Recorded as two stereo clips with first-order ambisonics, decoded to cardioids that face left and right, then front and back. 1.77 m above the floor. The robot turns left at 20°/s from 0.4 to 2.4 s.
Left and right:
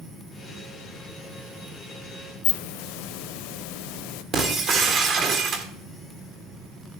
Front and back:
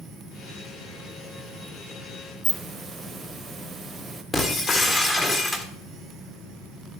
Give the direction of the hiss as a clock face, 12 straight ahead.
9 o'clock.